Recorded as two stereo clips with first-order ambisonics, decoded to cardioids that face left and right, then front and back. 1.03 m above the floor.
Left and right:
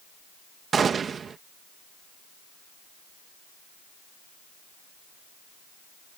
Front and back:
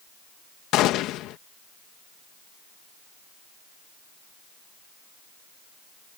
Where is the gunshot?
25° right.